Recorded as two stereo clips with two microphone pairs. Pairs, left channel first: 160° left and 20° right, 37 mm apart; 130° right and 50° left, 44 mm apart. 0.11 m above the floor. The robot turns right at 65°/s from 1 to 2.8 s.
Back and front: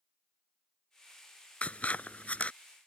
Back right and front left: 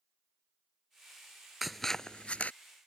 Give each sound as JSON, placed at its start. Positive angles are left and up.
{"t": 1.6, "sound": "scissors", "azimuth_deg": 135}